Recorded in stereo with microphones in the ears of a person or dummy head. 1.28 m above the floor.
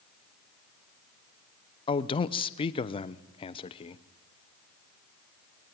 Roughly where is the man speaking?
Left.